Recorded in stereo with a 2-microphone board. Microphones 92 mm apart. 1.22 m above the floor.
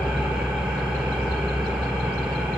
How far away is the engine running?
About 7.5 m.